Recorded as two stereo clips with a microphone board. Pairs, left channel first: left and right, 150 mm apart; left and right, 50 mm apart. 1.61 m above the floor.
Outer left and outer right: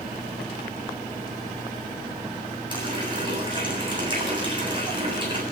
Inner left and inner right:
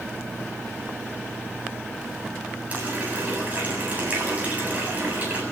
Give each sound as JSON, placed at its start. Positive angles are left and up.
{"t": 2.7, "sound": "a running tap", "side_deg": -30, "distance_m": 8.0}